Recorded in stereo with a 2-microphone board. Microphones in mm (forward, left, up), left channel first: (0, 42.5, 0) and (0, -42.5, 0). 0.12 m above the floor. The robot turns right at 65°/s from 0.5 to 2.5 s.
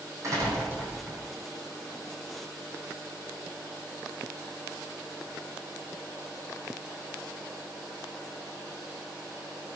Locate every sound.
0.2 s a door slam: 40° right, 4 m; by 1.2 s 5° left, 4 m